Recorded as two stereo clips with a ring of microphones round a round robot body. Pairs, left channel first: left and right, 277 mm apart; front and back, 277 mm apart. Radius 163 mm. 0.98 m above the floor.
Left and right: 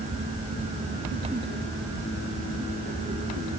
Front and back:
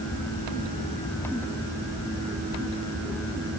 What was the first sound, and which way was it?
Only background noise.